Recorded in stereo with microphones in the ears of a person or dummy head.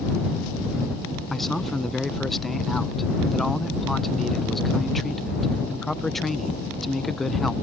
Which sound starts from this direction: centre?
A man speaking, at 1.3 s.